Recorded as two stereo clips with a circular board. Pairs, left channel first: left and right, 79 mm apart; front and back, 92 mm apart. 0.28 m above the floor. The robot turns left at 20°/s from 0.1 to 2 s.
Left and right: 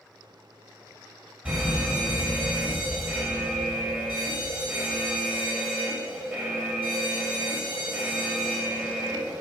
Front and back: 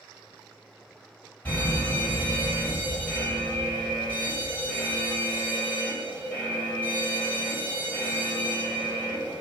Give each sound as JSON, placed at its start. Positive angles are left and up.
{"t": 1.4, "sound": "a fire alarm", "azimuth_deg": -35, "distance_m": 1.9}